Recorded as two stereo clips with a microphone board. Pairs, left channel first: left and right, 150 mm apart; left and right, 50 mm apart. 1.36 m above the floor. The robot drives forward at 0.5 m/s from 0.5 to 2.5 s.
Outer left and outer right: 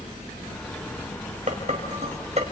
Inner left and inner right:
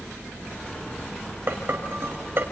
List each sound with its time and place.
1.5 s dishes clattering: 50° right (ahead or behind), 5 m; by 2.4 s 45° right (ahead or behind), 5 m